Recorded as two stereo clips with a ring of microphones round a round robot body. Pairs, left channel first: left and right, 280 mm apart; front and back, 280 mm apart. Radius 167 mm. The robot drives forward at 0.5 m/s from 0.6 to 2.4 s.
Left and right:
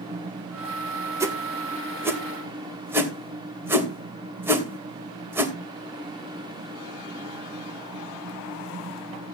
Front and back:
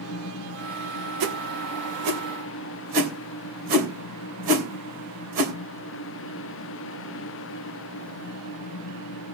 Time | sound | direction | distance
1.2 | a whoosh | 170° right | 2.5 m